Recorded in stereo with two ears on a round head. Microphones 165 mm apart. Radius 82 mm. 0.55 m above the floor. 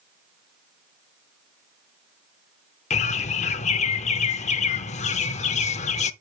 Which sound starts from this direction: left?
A bird, at 2.9 s.